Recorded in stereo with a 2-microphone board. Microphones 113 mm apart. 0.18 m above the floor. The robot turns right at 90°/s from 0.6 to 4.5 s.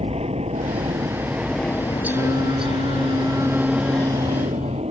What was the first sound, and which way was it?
An aircraft, 65° right (ahead or behind).